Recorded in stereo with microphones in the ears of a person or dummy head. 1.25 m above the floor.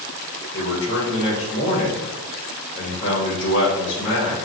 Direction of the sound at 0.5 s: 70° left (ahead or behind).